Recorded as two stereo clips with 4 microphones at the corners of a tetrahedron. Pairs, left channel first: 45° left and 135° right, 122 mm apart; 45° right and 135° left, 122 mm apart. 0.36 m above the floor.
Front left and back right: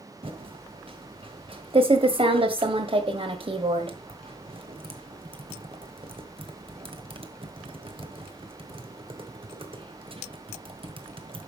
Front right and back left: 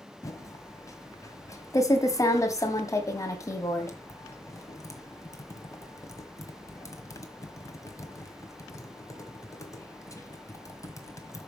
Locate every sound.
0.2 s typing on a keyboard: 105° right, 1.6 m